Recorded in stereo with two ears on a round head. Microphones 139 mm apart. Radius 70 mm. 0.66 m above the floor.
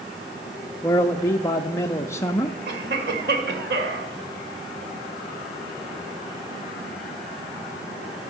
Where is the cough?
75° right (ahead or behind), 2 m.